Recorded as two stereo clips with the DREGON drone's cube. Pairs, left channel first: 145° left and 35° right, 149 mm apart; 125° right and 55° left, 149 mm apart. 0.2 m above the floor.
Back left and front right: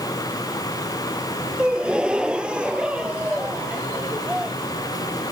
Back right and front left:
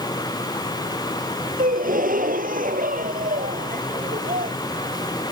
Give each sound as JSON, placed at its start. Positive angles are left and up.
{"t": 1.6, "sound": "a gasp", "azimuth_deg": 50}